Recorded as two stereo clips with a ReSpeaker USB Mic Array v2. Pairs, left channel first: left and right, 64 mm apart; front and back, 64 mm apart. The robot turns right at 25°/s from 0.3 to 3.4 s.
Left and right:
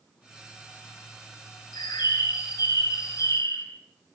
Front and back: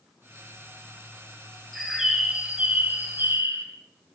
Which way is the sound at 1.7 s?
90° left.